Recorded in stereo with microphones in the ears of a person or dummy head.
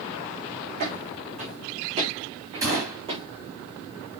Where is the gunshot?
20° right (ahead or behind), 6.5 m.